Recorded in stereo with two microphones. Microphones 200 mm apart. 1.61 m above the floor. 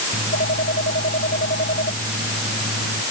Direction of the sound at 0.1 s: 60° left (ahead or behind).